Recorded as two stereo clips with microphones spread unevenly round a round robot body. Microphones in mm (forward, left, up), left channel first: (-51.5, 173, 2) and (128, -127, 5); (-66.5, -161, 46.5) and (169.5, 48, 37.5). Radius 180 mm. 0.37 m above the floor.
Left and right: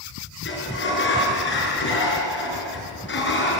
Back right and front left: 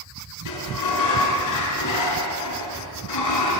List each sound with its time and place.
0.5 s a sliding door: straight behind, 5.5 m